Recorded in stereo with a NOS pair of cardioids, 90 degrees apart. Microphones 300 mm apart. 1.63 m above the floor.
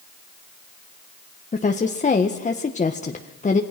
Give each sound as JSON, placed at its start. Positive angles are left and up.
{"t": 1.5, "sound": "a woman speaking", "azimuth_deg": 25, "distance_m": 1.6}